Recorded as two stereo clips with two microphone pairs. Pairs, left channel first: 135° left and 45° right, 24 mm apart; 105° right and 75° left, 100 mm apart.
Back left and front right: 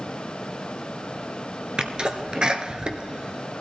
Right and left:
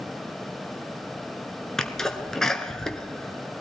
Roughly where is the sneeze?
Ahead right.